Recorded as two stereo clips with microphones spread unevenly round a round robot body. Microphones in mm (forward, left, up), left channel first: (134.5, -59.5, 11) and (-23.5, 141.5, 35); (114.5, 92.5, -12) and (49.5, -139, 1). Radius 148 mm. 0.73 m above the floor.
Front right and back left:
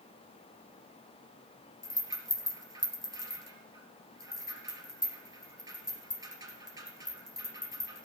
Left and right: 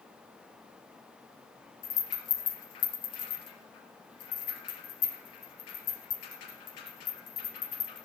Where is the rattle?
55° left, 3 m.